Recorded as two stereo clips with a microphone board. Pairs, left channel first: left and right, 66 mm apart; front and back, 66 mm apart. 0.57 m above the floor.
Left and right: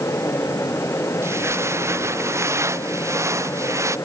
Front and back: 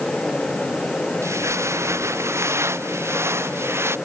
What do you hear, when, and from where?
1.2 s footsteps: 135° right; by 4.0 s 130° right